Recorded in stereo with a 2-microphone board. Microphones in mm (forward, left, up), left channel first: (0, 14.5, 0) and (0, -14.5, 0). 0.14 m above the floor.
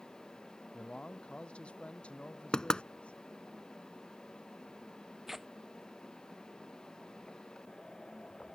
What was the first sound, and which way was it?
A man speaking, 35° left (ahead or behind).